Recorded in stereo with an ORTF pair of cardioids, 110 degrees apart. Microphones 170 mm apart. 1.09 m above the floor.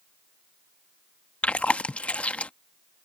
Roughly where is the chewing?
Ahead.